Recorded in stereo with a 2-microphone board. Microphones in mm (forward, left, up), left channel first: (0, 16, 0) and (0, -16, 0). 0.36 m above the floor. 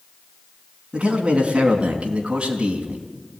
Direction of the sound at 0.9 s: 35° right (ahead or behind).